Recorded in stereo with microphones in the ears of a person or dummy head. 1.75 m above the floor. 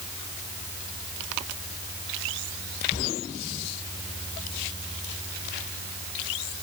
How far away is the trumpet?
No trumpet in this recording.